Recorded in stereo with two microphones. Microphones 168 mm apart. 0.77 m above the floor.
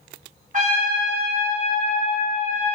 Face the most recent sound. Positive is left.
turn(degrees=-50)  # may be behind; listen again after turning